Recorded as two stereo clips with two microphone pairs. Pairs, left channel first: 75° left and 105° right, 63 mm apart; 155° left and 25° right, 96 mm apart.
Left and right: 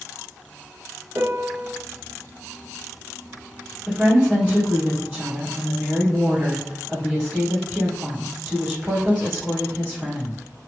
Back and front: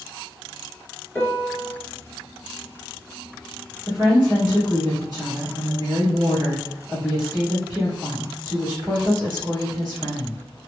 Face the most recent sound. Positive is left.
turn(degrees=-40)